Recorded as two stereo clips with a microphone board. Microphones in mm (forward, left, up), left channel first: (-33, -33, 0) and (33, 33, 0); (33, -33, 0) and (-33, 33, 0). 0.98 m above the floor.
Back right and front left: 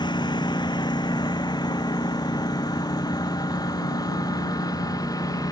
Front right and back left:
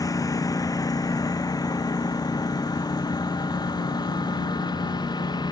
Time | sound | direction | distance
0.0 | a lawn mower | 95° right | ?